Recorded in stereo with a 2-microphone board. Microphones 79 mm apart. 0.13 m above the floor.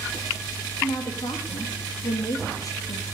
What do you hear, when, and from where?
0.8 s a woman speaking: 45° left (ahead or behind), 4.5 m